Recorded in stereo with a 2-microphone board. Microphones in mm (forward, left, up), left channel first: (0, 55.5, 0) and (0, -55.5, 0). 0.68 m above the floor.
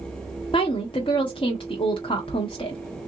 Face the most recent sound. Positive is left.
turn(degrees=50)  # may be behind; listen again after turning